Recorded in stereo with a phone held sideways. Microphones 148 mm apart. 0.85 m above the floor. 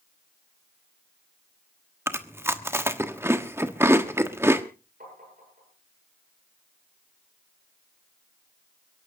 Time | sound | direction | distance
2.1 | chewing | 15° right (ahead or behind) | 1.2 m
5.0 | tapping | 75° right (ahead or behind) | 8.5 m